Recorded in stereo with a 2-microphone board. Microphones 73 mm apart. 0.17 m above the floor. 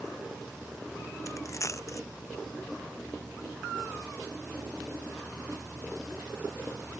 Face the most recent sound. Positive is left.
turn(degrees=45)  # may be behind; listen again after turning